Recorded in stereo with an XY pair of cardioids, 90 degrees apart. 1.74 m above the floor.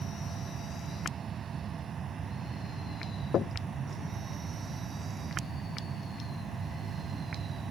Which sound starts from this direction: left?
Knocking, at 3.3 s.